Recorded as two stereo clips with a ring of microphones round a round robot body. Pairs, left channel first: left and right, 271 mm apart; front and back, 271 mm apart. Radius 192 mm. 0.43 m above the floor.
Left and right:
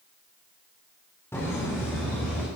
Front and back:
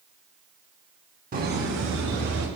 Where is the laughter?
165° left, 1.4 m; by 2.5 s 175° left, 2 m.